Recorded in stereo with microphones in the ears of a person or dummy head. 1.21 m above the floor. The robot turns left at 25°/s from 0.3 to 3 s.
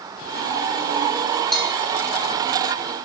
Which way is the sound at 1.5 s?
Centre (ahead or behind).